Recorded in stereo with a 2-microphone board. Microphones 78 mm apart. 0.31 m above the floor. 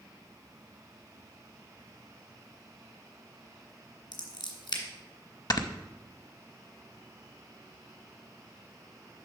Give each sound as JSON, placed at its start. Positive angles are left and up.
{"t": 4.1, "sound": "scissors", "side_deg": 70, "distance_m": 1.8}
{"t": 5.5, "sound": "snoring", "side_deg": 50, "distance_m": 0.6}